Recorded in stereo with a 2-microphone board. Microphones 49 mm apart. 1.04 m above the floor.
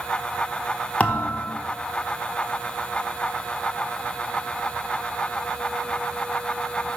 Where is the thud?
30° left (ahead or behind), 0.6 m.